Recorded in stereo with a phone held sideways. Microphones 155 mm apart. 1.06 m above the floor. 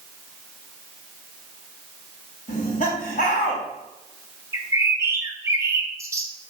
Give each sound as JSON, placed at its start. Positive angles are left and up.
{"t": 2.5, "sound": "laughter", "side_deg": 55, "distance_m": 2.5}
{"t": 4.5, "sound": "a bird", "side_deg": -20, "distance_m": 0.8}